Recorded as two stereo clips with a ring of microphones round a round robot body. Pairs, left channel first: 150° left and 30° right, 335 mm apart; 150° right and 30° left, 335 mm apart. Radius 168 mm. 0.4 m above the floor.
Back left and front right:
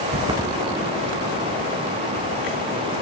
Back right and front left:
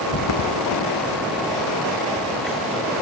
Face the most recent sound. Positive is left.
turn(degrees=120)